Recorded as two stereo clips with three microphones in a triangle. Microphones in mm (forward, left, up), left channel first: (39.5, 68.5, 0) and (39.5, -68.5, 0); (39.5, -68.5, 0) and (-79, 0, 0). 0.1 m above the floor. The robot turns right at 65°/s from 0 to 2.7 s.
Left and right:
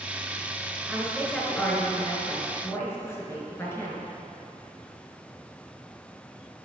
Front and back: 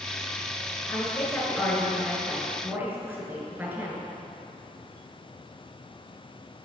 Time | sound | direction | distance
0.9 | a woman speaking | 10° right | 1.2 m